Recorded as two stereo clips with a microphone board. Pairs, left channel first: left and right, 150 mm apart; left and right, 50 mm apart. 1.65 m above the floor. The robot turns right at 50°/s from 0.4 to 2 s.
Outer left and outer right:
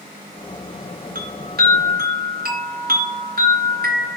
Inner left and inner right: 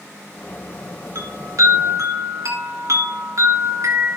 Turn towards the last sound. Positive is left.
turn(degrees=-75)